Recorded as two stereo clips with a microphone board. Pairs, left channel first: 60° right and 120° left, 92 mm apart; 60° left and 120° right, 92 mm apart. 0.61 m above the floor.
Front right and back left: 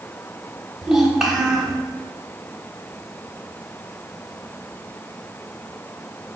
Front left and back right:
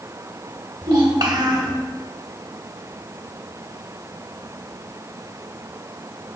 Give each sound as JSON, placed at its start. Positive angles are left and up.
{"t": 0.8, "sound": "a child speaking", "azimuth_deg": -155, "distance_m": 1.0}